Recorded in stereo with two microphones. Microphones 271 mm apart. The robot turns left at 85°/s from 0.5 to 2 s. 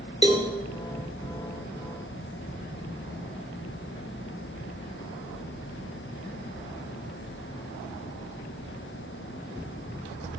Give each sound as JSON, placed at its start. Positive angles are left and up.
{"t": 0.2, "sound": "a cowbell", "side_deg": 25, "distance_m": 1.3}